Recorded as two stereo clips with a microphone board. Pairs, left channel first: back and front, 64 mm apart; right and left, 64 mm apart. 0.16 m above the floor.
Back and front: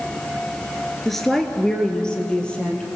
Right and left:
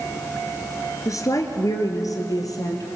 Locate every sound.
1.1 s a woman speaking: 95° right, 2.0 m; by 2.9 s 105° right, 3.5 m